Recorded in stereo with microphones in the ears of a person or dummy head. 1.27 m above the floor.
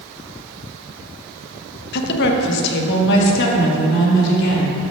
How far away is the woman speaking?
About 1.0 m.